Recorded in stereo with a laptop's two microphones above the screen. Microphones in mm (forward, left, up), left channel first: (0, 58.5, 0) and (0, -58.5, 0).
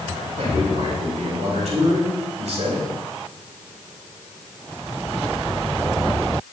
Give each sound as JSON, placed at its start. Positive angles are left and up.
{"t": 0.4, "sound": "a man speaking", "side_deg": -70, "distance_m": 5.5}